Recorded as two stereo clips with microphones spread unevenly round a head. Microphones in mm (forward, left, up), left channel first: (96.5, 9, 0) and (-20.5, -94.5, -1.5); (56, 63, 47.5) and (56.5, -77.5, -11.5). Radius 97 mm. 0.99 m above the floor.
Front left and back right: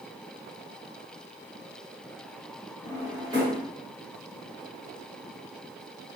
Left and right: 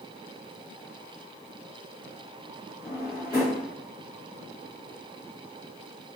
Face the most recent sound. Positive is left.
turn(degrees=155)